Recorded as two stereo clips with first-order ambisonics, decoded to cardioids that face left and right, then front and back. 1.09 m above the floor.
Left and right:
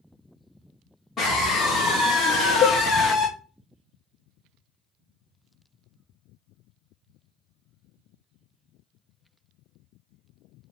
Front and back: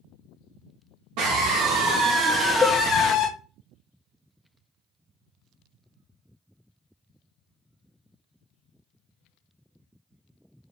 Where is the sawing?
I don't hear sawing.